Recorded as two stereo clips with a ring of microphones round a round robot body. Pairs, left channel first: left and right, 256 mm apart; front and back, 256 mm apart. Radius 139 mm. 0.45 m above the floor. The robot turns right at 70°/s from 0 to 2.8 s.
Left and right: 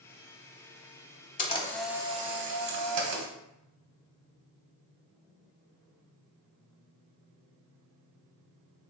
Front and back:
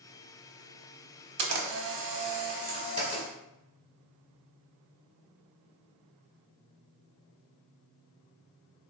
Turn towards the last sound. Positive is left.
turn(degrees=-110)